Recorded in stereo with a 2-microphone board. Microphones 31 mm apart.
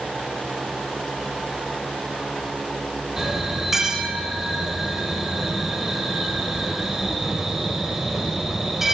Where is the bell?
10° right (ahead or behind), 4.5 m.